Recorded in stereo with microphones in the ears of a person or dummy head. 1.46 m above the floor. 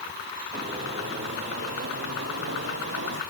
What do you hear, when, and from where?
0.5 s footsteps: 20° right (ahead or behind), 3 m; by 3.2 s 55° right (ahead or behind), 2.5 m